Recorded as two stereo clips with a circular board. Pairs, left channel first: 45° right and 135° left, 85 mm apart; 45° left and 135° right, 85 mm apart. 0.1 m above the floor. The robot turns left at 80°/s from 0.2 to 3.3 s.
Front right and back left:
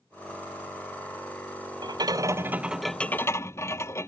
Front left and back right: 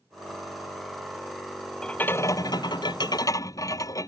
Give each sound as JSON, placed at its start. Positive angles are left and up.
{"t": 1.8, "sound": "a rattle", "azimuth_deg": 125}